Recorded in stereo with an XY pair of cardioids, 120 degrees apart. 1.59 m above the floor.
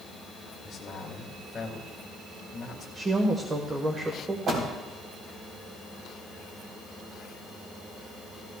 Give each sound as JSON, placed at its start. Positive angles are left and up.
{"t": 0.6, "sound": "a man speaking", "azimuth_deg": 30, "distance_m": 2.5}
{"t": 3.0, "sound": "a woman speaking", "azimuth_deg": -30, "distance_m": 1.4}
{"t": 4.5, "sound": "a door slam", "azimuth_deg": -50, "distance_m": 4.0}